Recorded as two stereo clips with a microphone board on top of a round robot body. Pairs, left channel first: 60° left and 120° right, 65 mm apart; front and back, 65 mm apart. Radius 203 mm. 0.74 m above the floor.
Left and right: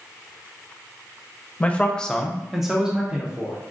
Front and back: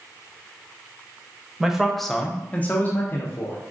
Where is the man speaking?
110° left, 0.9 m; by 3.6 s 50° right, 1.3 m.